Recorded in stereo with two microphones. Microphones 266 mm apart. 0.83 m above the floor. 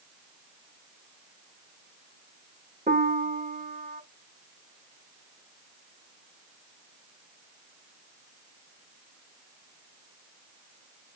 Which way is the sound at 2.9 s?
30° right (ahead or behind).